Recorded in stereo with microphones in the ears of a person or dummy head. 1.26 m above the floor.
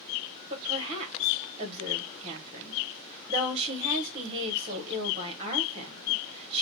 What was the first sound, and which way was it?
A woman speaking, 35° right (ahead or behind).